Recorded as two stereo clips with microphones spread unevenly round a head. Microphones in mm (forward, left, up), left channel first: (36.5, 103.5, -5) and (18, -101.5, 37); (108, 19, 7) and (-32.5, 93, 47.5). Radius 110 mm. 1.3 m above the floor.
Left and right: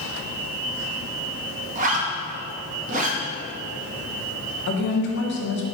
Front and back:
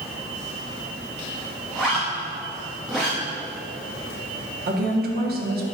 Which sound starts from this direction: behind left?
A woman speaking, at 4.7 s.